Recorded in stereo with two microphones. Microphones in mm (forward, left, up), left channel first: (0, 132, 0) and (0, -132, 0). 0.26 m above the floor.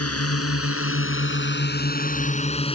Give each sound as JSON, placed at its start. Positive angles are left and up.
{"t": 0.0, "sound": "a drone", "side_deg": 65}